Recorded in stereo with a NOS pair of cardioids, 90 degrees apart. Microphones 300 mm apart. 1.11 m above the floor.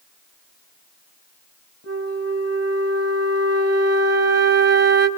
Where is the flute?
55° right, 4 m.